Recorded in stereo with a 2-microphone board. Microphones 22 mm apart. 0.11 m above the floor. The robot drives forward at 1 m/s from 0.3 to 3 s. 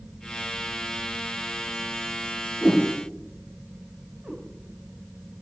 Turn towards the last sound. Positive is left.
turn(degrees=-75)  # may be behind; listen again after turning